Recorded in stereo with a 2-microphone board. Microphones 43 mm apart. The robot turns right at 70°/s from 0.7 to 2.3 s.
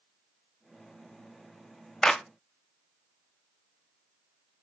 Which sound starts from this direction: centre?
A clap, at 2.0 s.